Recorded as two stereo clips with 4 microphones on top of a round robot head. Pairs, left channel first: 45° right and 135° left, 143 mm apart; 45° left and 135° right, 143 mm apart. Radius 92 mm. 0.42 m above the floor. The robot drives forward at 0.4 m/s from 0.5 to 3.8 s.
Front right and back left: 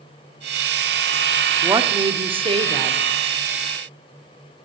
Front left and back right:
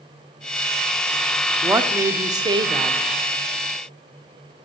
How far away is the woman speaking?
About 0.8 m.